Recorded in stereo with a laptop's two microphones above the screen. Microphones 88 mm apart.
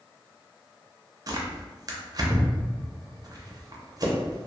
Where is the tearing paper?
40° right (ahead or behind), 0.5 m.